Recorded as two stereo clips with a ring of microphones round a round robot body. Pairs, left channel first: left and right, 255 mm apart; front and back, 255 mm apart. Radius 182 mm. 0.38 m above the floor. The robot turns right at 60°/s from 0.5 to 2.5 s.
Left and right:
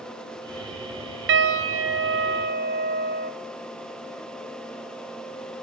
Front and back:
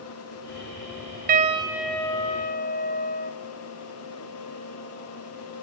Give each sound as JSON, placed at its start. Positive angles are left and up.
{"t": 1.3, "sound": "a piano", "azimuth_deg": -125, "distance_m": 2.5}